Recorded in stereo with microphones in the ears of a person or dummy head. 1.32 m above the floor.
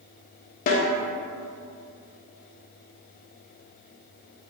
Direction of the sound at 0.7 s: 55° left (ahead or behind).